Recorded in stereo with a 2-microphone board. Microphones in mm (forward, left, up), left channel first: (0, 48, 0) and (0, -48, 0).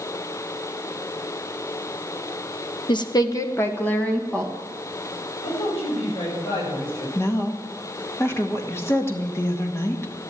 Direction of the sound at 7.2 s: 25° left (ahead or behind).